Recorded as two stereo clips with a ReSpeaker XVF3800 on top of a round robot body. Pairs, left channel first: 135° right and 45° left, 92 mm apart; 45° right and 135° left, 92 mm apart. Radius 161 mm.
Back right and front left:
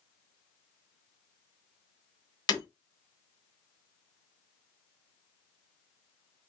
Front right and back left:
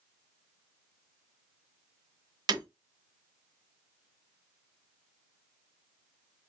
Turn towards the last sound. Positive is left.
turn(degrees=180)